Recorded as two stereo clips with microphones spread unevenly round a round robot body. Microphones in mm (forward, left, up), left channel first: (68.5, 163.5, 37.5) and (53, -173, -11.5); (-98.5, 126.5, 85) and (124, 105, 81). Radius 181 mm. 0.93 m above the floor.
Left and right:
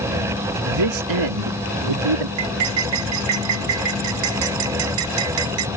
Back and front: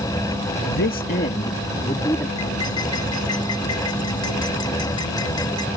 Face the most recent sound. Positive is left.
turn(degrees=-110)